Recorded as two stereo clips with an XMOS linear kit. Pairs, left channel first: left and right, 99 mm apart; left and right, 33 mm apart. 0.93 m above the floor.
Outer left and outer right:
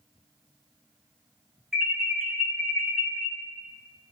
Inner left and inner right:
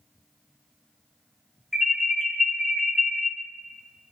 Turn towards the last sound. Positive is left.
turn(degrees=-5)  # may be behind; listen again after turning